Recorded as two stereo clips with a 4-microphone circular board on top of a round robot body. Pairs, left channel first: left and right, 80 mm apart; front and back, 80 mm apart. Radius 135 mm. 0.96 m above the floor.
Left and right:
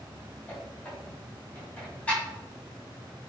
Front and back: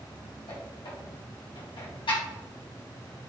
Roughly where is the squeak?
Ahead.